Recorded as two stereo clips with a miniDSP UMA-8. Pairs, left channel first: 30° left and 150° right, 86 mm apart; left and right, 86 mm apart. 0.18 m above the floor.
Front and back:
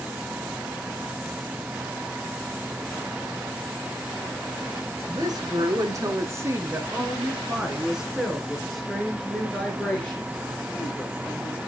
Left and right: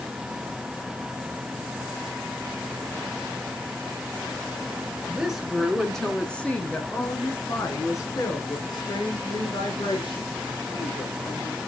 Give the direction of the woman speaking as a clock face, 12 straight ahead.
6 o'clock.